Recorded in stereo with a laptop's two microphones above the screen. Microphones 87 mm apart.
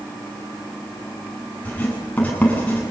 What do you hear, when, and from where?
1.6 s writing: 15° left (ahead or behind), 9 m